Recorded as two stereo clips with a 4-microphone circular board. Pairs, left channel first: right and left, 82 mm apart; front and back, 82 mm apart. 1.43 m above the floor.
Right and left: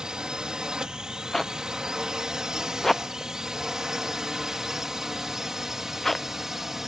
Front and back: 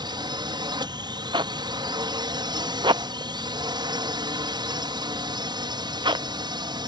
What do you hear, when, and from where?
0.0 s a drone: 170° left; by 6.9 s 175° left
1.3 s a zipper: 175° right